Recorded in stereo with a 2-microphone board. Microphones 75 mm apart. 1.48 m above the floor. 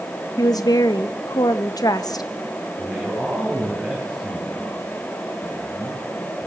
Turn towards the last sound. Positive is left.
turn(degrees=-5)  # may be behind; listen again after turning